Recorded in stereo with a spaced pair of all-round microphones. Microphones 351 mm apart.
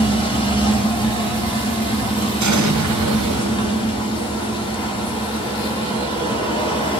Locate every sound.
0.0 s a machine running: 15° left (ahead or behind), 1.3 m
2.4 s an explosion: 55° right (ahead or behind), 0.5 m